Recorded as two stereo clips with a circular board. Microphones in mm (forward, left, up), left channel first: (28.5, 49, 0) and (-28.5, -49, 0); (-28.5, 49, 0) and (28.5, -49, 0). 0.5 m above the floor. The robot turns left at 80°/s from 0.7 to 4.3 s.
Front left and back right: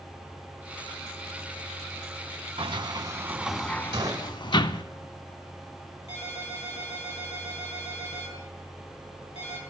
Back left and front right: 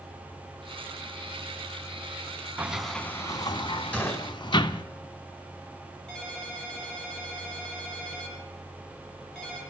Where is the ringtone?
35° left, 6 m.